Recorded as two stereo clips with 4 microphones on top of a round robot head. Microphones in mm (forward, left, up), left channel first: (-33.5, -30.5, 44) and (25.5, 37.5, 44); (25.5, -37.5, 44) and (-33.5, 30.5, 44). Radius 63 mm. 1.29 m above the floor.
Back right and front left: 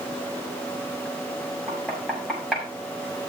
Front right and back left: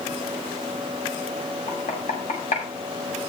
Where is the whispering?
I don't hear whispering.